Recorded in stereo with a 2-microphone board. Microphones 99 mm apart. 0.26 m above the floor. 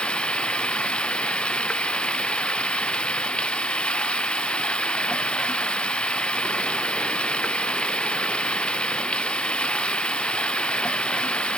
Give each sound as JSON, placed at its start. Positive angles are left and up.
{"t": 0.0, "sound": "running water", "side_deg": 10}